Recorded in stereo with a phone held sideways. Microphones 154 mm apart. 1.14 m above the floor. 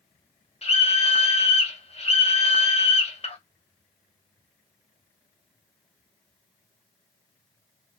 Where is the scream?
40° left (ahead or behind), 1.0 m.